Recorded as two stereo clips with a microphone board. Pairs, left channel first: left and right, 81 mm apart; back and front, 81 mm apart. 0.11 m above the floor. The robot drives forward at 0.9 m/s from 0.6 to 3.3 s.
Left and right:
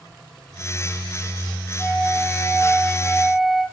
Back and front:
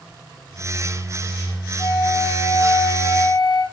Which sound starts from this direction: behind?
A flute, at 1.8 s.